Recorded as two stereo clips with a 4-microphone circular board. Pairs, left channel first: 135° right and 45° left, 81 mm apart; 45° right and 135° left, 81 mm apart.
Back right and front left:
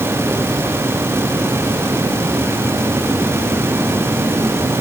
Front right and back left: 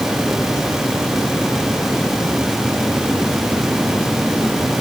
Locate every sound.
Only background noise.